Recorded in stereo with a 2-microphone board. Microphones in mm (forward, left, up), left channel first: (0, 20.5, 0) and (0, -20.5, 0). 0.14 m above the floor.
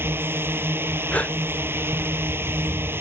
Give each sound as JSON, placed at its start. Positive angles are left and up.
{"t": 0.0, "sound": "a drone", "side_deg": -60}
{"t": 1.1, "sound": "a gasp", "side_deg": 35}